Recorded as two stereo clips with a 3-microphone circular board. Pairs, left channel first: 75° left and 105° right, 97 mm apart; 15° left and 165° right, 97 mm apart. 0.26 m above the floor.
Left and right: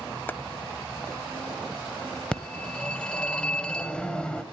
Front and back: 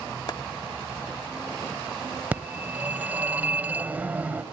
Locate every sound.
0.3 s chopping: 15° left, 0.6 m
2.3 s a phone ringing: 145° left, 0.6 m